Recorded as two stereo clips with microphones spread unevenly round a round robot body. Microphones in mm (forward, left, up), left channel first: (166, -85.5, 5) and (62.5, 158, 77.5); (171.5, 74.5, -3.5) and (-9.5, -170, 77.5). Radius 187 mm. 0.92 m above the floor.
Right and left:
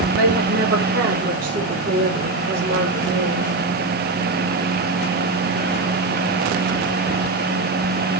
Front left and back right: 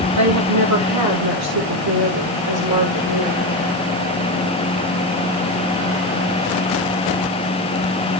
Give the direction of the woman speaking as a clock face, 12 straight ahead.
6 o'clock.